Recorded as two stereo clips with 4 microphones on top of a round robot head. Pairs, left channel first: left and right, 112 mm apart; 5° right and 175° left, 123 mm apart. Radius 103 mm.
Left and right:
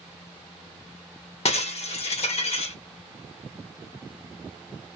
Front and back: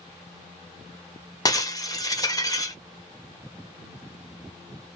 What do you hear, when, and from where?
1.4 s breaking glass: 60° left, 1.2 m